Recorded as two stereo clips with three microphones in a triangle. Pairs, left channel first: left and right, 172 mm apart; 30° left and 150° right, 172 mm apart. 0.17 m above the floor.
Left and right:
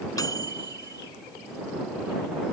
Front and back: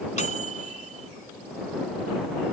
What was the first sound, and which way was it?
A microwave, 30° left.